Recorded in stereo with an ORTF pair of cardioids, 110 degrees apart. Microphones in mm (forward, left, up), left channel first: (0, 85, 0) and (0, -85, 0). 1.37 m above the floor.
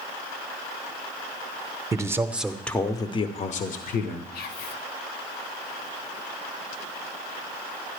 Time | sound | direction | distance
1.9 | a man speaking | 20° right | 1.0 m
4.3 | whispering | 65° left | 1.2 m